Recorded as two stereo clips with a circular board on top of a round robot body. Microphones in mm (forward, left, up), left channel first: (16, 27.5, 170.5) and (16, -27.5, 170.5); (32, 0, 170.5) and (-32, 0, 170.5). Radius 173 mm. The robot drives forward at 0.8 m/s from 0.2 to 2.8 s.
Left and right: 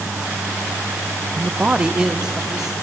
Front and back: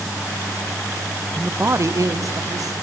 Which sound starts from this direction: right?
A man speaking, at 1.4 s.